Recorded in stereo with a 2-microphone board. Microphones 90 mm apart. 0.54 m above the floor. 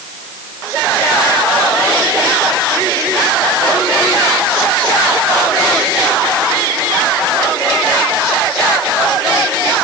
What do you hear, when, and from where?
Only background noise.